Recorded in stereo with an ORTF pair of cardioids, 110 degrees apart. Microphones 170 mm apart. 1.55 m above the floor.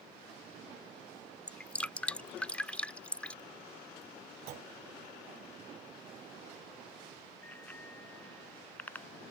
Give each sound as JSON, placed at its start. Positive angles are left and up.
{"t": 1.5, "sound": "dripping", "azimuth_deg": 5}
{"t": 4.5, "sound": "a clunk", "azimuth_deg": -70}
{"t": 7.4, "sound": "a bicycle bell", "azimuth_deg": 10}